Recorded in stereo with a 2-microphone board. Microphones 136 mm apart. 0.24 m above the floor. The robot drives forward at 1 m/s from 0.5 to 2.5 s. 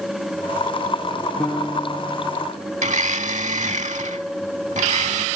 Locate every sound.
1.4 s a piano: 10° left (ahead or behind)
2.8 s a blender: 65° right (ahead or behind)